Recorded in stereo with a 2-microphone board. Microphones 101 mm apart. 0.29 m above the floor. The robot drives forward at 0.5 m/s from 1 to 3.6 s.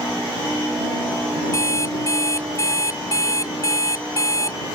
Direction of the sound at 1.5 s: 30° left (ahead or behind).